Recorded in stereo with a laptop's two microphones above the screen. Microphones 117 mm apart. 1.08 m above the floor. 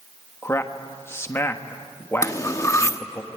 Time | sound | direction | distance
0.4 | a man speaking | 20° left (ahead or behind) | 1.3 m
2.2 | cutlery clinking | 25° left (ahead or behind) | 0.9 m